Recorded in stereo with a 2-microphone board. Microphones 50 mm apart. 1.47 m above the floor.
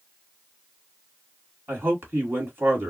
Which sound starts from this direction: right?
A man speaking, at 1.7 s.